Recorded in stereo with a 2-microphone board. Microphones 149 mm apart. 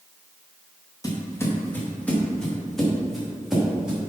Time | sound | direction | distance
1.0 | footsteps | 25° left (ahead or behind) | 3 m